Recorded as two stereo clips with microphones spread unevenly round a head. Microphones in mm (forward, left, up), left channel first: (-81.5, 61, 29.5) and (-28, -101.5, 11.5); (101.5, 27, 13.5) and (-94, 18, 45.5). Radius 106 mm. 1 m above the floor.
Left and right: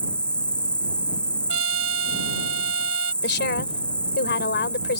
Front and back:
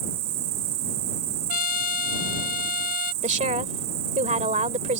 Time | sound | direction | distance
0.0 | an insect | 170° right | ?
1.5 | a trumpet | 50° right | ?
3.2 | a woman speaking | 130° left | ?